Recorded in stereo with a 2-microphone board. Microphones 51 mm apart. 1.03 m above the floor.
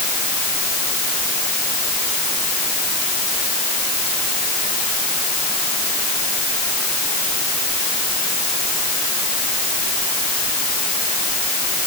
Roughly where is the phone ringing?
No phone ringing in this recording.